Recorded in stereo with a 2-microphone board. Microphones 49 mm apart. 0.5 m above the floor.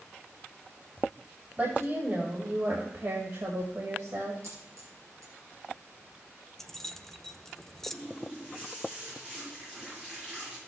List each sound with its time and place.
1.6 s a woman speaking: 40° right (ahead or behind), 2 m; by 4.3 s 70° right (ahead or behind), 2.5 m
4.4 s a dropped coin: 80° right, 3 m
6.6 s keys jangling: 5° left (ahead or behind), 0.6 m
7.9 s a running tap: 20° right (ahead or behind), 6 m